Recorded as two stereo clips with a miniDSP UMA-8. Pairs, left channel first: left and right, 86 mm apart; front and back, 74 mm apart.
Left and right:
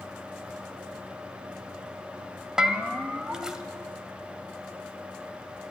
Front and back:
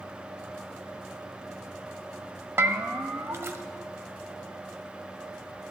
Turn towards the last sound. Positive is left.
turn(degrees=-165)